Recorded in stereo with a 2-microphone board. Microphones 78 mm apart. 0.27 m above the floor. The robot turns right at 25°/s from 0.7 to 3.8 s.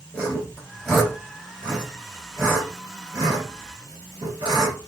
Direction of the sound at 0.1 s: 10° left (ahead or behind).